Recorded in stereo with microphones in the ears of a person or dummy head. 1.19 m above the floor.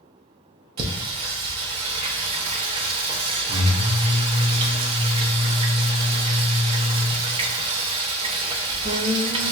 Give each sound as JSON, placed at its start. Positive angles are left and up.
{"t": 0.8, "sound": "singing", "side_deg": -35, "distance_m": 0.7}